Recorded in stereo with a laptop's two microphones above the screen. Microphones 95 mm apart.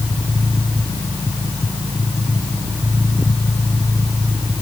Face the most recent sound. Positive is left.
No sound to turn to.